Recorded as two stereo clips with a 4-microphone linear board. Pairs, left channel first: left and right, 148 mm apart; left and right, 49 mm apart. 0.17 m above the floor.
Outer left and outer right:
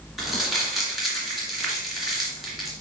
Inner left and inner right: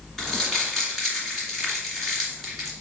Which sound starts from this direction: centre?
Crumpling, at 0.2 s.